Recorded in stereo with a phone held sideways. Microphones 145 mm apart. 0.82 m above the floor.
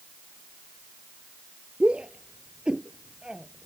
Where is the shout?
10° right (ahead or behind); by 3.7 s 5° right (ahead or behind).